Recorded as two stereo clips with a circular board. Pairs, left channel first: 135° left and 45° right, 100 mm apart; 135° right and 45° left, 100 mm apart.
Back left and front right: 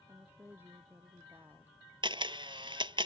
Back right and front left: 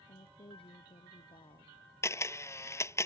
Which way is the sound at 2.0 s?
75° right.